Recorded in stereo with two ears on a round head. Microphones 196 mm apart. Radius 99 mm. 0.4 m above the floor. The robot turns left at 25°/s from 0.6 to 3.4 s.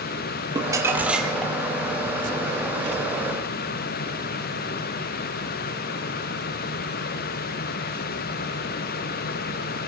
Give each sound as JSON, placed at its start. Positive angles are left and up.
{"t": 0.6, "sound": "crumpling", "side_deg": -20, "distance_m": 3.5}